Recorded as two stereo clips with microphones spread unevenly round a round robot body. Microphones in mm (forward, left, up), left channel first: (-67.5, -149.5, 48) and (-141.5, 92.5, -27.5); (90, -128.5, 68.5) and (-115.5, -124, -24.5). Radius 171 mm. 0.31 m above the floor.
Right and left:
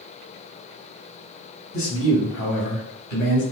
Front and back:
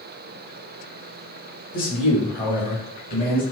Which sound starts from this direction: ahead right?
A man speaking, at 1.7 s.